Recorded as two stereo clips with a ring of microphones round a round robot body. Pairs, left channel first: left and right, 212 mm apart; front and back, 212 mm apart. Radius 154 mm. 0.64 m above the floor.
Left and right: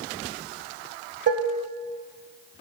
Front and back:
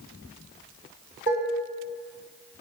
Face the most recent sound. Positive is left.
turn(degrees=-50)